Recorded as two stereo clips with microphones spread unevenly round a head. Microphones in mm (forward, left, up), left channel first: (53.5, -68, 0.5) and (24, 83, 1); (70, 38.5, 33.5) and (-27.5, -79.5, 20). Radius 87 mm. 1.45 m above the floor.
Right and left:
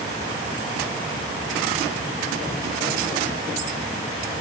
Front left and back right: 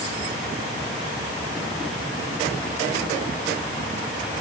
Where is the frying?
No frying in this recording.